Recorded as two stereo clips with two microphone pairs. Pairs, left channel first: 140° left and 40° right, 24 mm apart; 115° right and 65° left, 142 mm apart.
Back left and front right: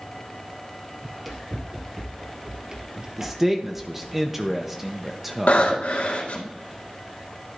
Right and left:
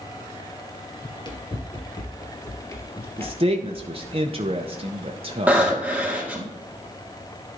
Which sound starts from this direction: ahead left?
A man speaking, at 3.2 s.